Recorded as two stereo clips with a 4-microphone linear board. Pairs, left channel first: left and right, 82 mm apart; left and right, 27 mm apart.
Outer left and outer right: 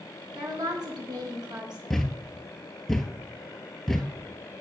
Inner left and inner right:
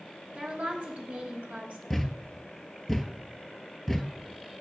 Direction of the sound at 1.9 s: 5° left (ahead or behind).